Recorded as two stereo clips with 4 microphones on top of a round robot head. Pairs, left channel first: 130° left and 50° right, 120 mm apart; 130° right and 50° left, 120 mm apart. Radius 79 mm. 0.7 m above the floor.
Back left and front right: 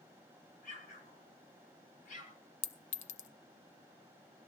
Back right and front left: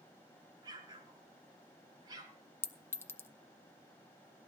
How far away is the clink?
About 0.8 m.